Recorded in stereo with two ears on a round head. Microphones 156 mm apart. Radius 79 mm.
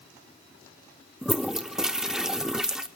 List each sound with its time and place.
1.2 s a toilet flushing: 5° right (ahead or behind), 0.6 m